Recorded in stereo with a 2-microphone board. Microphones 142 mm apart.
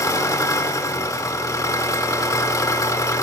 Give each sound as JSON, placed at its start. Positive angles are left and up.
{"t": 0.0, "sound": "an engine running", "side_deg": 25, "distance_m": 1.2}